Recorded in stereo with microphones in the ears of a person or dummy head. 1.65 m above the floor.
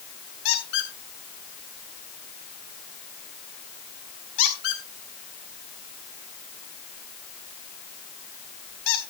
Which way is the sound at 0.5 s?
70° left (ahead or behind).